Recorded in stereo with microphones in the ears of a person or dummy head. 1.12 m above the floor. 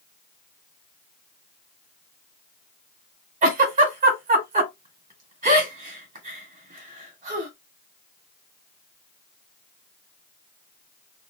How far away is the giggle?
About 2.5 m.